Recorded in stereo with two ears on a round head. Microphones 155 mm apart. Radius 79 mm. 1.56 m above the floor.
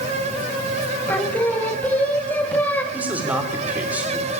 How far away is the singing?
About 1.8 m.